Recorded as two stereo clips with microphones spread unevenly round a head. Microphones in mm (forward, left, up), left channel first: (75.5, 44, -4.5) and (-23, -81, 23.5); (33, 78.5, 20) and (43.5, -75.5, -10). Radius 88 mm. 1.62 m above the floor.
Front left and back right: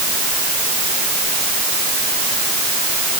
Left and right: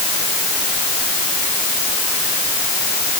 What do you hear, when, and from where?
Only background noise.